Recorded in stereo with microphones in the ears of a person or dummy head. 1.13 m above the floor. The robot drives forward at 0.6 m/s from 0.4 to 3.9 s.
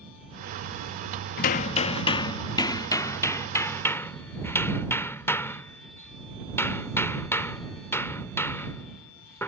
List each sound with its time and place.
1.4 s hammering: 35° left (ahead or behind); by 9.5 s 10° left (ahead or behind)